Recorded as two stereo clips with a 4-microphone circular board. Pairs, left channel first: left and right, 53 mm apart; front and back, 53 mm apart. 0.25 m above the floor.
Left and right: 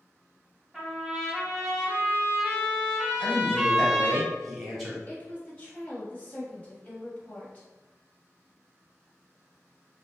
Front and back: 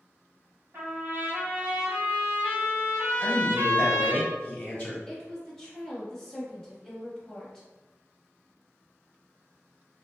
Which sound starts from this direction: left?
A woman speaking, at 5.1 s.